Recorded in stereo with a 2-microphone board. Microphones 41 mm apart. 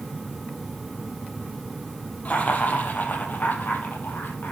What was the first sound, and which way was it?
Laughter, 40° left (ahead or behind).